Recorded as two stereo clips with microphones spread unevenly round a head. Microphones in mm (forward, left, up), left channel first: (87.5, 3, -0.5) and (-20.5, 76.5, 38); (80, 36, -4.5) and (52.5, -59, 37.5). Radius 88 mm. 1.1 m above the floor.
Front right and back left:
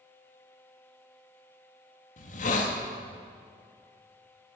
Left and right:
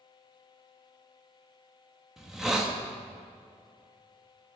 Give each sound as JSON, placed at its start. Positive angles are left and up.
{"t": 2.2, "sound": "a hiss", "azimuth_deg": -20, "distance_m": 1.4}